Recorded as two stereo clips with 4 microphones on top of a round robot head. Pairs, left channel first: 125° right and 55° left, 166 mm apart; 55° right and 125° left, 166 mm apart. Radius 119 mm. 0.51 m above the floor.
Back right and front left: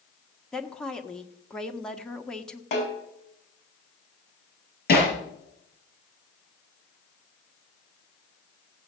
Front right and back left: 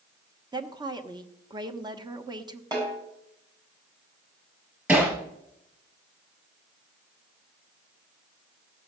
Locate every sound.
0.5 s a woman speaking: 155° left, 1.4 m
2.7 s a snare drum: 170° right, 6 m
4.9 s hammering: 155° right, 5 m